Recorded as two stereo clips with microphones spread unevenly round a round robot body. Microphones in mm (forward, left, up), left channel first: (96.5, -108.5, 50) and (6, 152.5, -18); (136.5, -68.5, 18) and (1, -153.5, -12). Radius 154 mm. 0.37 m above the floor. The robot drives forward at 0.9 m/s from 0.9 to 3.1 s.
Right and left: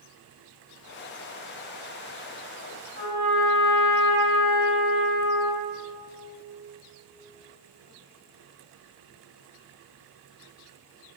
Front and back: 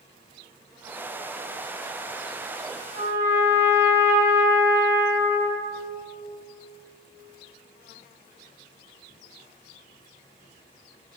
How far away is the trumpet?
About 2 m.